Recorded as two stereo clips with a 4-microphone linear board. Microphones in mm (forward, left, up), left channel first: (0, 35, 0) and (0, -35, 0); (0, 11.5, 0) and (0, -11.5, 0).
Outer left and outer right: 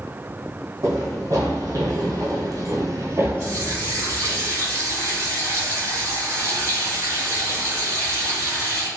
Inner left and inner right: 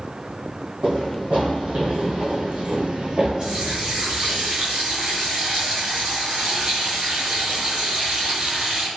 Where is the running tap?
50° right (ahead or behind), 1.8 m.